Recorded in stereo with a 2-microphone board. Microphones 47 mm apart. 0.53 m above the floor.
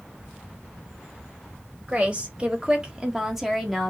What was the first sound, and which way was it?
A woman speaking, 25° right (ahead or behind).